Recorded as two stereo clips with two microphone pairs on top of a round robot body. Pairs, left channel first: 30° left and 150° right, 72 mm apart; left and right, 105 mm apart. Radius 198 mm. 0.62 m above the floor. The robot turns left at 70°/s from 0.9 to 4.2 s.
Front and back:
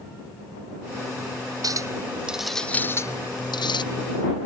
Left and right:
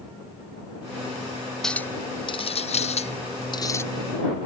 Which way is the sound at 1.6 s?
175° left.